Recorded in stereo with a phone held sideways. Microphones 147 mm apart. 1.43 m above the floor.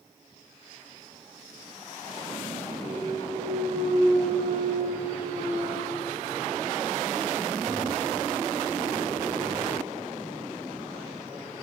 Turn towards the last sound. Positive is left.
turn(degrees=-55)  # may be behind; listen again after turning